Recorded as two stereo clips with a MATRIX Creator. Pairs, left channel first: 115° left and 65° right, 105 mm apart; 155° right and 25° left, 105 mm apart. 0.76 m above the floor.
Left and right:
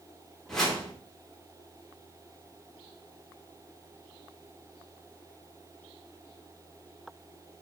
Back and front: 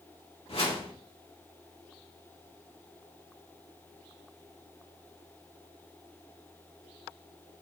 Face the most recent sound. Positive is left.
turn(degrees=-160)